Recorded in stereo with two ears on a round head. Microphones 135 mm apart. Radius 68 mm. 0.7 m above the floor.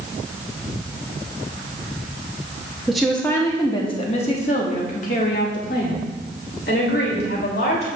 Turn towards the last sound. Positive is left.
turn(degrees=75)  # may be behind; listen again after turning